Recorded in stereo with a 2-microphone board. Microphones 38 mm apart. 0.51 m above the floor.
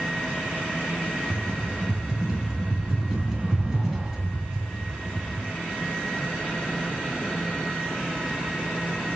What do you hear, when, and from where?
1.3 s a rattle: 10° right (ahead or behind), 2.5 m